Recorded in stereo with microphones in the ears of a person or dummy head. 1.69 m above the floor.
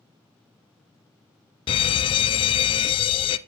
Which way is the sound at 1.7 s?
30° left (ahead or behind).